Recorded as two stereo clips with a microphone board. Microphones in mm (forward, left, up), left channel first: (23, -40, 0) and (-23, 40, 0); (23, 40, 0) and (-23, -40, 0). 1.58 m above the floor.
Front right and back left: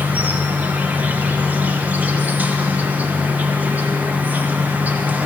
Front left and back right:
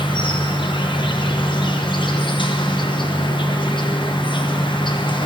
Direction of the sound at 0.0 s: 50° left.